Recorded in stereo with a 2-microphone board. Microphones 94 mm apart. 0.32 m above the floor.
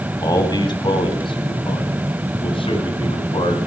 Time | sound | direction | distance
0.2 | a man speaking | 45° left (ahead or behind) | 2.5 m